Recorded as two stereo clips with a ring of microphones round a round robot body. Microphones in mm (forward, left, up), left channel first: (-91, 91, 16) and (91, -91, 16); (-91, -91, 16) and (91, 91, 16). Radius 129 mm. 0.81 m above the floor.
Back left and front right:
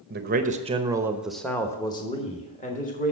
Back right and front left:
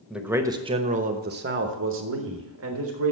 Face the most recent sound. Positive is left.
turn(degrees=80)